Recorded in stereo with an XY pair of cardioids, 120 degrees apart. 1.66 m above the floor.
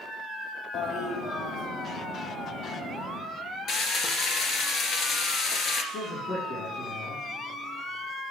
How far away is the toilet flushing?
About 1.8 m.